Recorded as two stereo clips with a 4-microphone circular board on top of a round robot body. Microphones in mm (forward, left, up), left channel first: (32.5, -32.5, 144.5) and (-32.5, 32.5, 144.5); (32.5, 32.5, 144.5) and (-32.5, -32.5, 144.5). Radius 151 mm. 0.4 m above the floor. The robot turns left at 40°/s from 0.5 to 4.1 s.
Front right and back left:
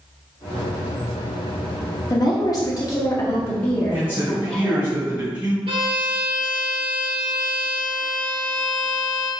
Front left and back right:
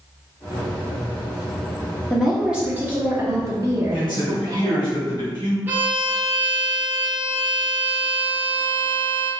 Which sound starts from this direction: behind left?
A violin, at 5.7 s.